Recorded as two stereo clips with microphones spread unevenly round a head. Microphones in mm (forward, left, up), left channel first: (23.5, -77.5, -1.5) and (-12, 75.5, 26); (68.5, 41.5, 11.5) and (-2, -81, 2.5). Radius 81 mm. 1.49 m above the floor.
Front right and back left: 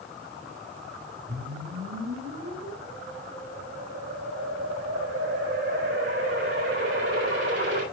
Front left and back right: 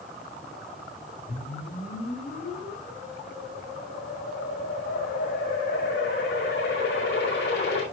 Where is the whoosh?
90° left, 6.5 m.